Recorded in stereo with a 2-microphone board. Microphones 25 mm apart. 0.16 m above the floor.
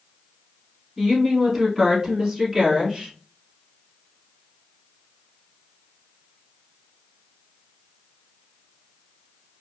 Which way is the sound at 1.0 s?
20° right (ahead or behind).